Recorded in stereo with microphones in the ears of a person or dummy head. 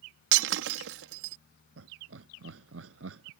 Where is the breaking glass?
70° right (ahead or behind).